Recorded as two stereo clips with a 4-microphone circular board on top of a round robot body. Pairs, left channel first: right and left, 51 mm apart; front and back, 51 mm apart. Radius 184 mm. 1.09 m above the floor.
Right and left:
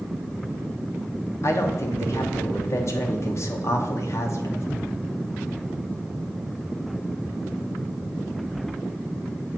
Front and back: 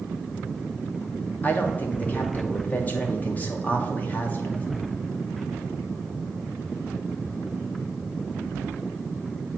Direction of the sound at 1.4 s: 60° right.